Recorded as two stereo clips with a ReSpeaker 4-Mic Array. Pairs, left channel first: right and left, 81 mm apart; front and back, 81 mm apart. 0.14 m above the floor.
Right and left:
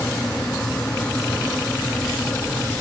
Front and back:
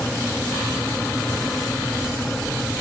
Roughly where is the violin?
No violin in this recording.